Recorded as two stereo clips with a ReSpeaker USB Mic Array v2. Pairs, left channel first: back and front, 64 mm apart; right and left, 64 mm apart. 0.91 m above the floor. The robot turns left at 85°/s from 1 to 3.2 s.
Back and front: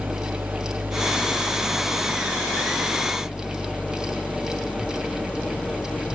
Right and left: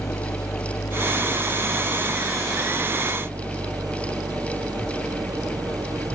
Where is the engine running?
60° right; by 6.2 s 110° left.